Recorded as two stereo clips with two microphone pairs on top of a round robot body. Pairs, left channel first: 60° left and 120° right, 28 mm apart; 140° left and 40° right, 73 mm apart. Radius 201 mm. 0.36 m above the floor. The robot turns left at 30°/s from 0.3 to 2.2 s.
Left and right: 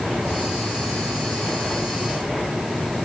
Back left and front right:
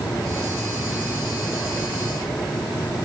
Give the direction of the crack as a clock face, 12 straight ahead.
No crack in this recording.